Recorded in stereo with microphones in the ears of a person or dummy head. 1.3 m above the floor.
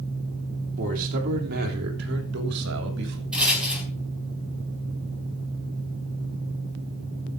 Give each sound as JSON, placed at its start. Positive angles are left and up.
{"t": 0.8, "sound": "a man speaking", "side_deg": -50, "distance_m": 3.5}
{"t": 3.3, "sound": "a rattle", "side_deg": -5, "distance_m": 4.0}